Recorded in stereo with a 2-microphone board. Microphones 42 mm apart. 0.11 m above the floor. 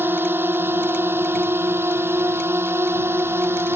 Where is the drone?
55° right (ahead or behind); by 3.8 s 70° right (ahead or behind).